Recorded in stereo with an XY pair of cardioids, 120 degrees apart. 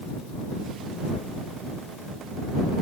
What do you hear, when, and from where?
Only background noise.